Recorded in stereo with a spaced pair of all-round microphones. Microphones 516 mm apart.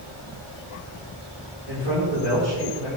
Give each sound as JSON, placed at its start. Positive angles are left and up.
{"t": 1.7, "sound": "a man speaking", "side_deg": -70, "distance_m": 5.5}